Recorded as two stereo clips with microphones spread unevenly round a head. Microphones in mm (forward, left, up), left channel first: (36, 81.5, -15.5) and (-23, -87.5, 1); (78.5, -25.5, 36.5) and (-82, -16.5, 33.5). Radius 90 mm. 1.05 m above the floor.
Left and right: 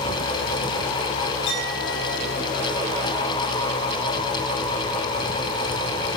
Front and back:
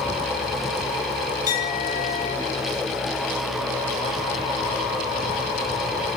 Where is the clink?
45° left, 7.5 m.